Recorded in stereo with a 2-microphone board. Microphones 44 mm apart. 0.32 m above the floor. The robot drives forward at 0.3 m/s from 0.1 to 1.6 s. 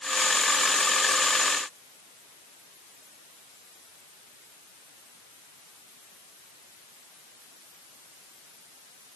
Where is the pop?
No pop in this recording.